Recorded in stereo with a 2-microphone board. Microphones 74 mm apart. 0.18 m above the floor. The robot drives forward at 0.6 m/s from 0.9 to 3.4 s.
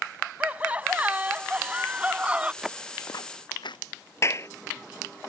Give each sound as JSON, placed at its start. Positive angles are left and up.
{"t": 0.4, "sound": "laughter", "side_deg": -20}
{"t": 2.6, "sound": "footsteps", "side_deg": -5}
{"t": 4.2, "sound": "a clap", "side_deg": 40}